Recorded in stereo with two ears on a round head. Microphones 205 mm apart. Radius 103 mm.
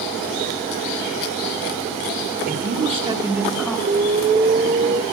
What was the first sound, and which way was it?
A man speaking, 40° right (ahead or behind).